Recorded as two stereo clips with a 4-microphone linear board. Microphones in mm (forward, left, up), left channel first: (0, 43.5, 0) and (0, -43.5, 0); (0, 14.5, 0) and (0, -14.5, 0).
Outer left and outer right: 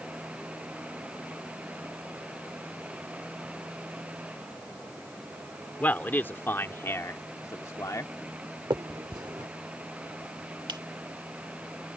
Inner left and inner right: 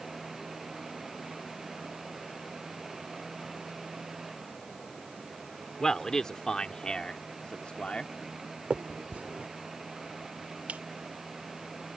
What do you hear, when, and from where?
5.8 s a man speaking: 20° left (ahead or behind); by 8.1 s 45° left (ahead or behind)
8.7 s a finger snap: 55° right (ahead or behind)